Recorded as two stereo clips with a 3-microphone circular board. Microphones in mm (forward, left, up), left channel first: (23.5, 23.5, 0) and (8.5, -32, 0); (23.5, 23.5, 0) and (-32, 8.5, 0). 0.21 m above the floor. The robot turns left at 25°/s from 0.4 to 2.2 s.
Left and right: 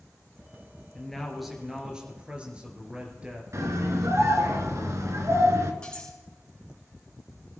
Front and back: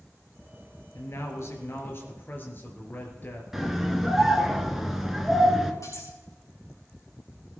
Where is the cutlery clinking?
Straight ahead, 7 m.